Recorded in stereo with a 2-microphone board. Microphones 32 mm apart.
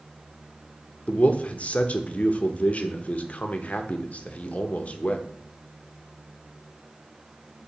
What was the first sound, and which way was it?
A man speaking, 45° left (ahead or behind).